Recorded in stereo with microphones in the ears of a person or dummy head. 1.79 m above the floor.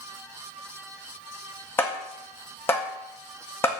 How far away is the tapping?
About 1.9 m.